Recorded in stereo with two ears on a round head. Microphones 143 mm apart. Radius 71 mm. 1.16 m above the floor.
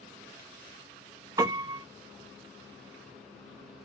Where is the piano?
15° right (ahead or behind), 0.7 m.